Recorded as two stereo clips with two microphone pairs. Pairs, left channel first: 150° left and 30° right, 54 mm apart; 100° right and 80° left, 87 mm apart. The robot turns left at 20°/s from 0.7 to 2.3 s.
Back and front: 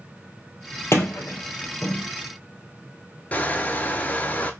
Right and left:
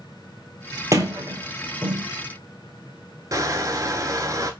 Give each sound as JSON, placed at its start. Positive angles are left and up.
{"t": 0.9, "sound": "a sliding door", "azimuth_deg": 125, "distance_m": 1.1}
{"t": 3.3, "sound": "crushing", "azimuth_deg": 105, "distance_m": 0.6}